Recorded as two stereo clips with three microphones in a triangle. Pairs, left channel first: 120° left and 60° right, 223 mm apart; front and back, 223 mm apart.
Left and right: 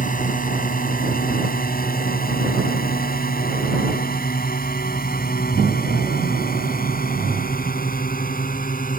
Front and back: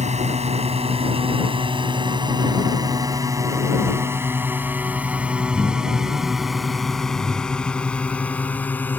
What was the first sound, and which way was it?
A drone, 140° left.